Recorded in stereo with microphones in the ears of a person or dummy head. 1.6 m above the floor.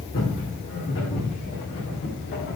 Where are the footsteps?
55° left (ahead or behind), 5 m; by 2.6 s 50° left (ahead or behind), 6 m.